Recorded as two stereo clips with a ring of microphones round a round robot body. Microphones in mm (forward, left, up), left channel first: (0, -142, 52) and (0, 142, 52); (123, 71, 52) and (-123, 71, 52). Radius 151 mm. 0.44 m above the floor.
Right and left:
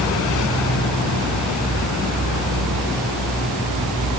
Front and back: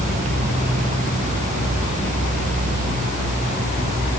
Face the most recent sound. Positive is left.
No sound to turn to.